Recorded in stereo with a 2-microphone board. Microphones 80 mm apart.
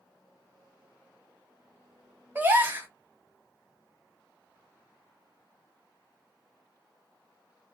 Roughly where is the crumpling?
I don't hear crumpling.